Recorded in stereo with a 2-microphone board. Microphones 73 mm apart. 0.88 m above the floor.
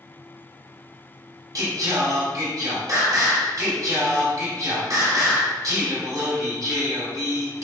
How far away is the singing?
About 2.5 m.